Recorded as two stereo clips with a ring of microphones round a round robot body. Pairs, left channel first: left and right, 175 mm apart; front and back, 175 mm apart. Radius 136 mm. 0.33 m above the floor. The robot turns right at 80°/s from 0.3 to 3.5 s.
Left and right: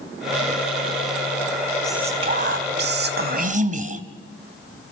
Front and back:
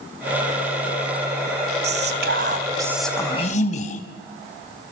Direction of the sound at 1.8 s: 175° left.